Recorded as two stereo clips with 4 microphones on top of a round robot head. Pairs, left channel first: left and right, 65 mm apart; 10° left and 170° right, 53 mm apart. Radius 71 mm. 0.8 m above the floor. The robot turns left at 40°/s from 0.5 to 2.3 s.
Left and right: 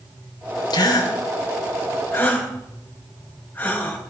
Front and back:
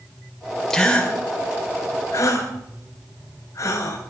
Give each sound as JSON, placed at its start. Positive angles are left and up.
{"t": 0.7, "sound": "a gasp", "azimuth_deg": 95, "distance_m": 3.5}